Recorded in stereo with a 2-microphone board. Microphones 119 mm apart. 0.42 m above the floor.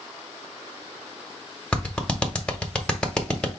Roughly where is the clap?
Centre.